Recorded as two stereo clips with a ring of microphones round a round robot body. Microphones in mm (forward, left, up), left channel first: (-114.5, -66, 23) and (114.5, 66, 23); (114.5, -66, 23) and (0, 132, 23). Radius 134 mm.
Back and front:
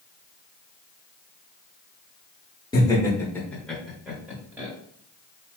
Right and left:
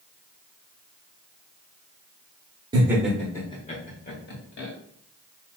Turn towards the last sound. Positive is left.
turn(degrees=-50)